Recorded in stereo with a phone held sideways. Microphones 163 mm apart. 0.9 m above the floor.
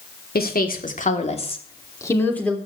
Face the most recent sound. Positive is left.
turn(degrees=5)  # may be behind; listen again after turning